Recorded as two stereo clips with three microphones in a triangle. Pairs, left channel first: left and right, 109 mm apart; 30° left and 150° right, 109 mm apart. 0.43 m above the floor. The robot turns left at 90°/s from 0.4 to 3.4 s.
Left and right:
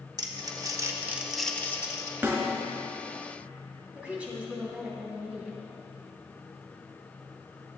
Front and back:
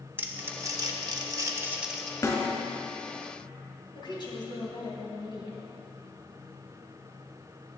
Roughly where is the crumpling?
Right.